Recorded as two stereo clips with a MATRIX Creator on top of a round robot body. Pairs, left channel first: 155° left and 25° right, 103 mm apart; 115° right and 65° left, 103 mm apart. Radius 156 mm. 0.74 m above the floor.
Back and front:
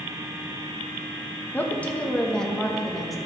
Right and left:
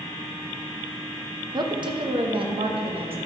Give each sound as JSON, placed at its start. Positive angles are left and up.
{"t": 1.5, "sound": "a woman speaking", "azimuth_deg": 90, "distance_m": 1.4}